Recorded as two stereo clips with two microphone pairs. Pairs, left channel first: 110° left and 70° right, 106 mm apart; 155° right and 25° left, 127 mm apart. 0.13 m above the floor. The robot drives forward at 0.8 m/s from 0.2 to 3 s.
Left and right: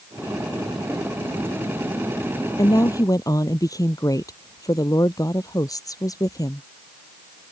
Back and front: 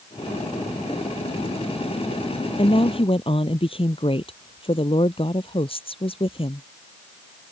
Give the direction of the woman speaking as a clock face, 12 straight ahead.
7 o'clock.